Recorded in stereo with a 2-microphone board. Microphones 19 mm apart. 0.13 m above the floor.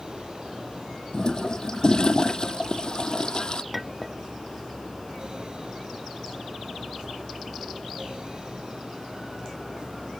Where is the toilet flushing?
45° left (ahead or behind).